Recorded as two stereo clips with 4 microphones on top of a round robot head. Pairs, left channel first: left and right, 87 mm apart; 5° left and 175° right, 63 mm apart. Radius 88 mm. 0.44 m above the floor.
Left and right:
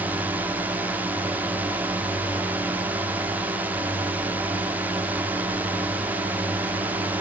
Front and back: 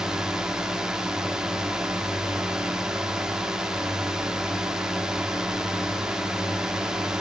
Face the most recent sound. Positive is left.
turn(degrees=-115)